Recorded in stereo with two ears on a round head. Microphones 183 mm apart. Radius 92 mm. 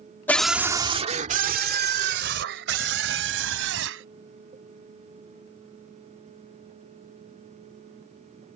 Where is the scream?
10° left (ahead or behind); by 4.0 s 70° right (ahead or behind).